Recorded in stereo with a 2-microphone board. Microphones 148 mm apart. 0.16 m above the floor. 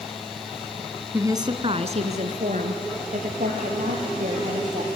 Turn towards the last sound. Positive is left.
turn(degrees=-65)  # may be behind; listen again after turning